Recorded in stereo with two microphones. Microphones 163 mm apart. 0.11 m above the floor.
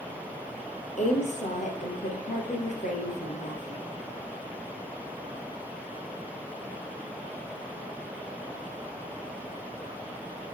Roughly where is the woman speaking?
Left.